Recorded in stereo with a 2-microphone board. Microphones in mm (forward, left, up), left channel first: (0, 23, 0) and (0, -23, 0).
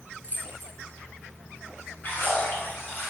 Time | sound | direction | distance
0.2 | keys jangling | 40° left (ahead or behind) | 1.0 m
2.0 | a splash | 45° left (ahead or behind) | 1.3 m